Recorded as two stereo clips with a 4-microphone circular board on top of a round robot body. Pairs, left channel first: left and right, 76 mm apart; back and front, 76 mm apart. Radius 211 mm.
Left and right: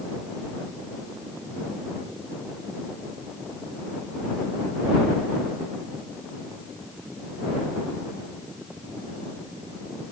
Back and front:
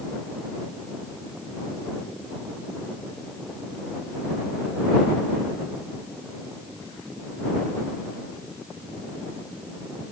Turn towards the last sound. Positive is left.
No sound to turn to.